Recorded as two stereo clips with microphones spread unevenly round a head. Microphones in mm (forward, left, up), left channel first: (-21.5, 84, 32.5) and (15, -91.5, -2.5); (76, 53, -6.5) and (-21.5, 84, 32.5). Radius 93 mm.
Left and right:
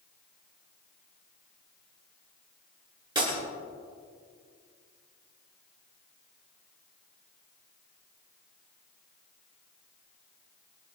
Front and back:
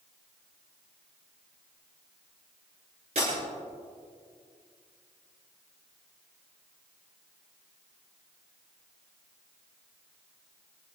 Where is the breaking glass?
145° right, 8.5 m.